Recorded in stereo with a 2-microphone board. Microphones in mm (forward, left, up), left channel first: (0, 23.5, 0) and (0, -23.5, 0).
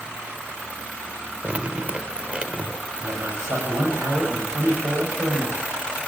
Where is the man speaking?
80° right, 7 m.